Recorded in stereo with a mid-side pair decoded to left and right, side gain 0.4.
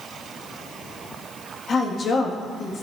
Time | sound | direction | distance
1.7 | a woman speaking | 55° left | 2.5 m